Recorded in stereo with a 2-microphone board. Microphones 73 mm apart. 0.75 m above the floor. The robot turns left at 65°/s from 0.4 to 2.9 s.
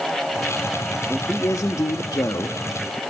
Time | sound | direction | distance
1.1 | a man speaking | 155° left | 0.8 m